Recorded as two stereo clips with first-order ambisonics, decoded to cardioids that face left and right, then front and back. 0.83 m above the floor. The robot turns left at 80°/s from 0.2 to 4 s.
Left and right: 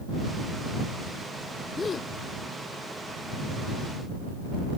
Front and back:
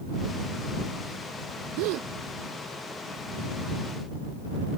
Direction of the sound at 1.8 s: 170° left.